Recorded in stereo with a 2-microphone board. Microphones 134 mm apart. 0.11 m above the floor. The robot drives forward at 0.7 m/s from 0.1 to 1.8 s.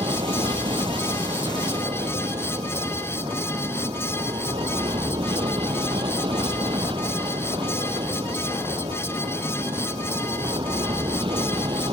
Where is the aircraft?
40° right (ahead or behind).